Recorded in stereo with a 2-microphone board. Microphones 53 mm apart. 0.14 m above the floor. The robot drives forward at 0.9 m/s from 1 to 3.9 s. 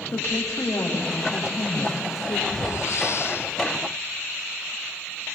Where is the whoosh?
75° left (ahead or behind), 1.6 m; by 3.5 s 50° left (ahead or behind), 2.0 m.